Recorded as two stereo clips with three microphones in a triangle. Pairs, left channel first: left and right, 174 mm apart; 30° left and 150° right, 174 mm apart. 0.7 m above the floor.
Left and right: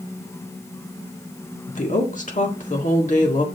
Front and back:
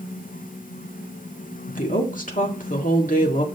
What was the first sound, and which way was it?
A woman speaking, 55° left.